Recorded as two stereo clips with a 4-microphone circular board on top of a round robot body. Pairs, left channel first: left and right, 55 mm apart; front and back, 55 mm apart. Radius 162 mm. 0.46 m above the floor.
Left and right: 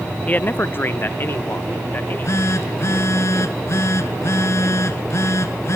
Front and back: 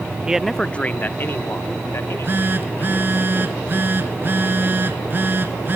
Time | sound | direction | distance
0.3 | a man speaking | 125° left | 0.8 m
1.9 | a phone buzzing | 130° left | 1.9 m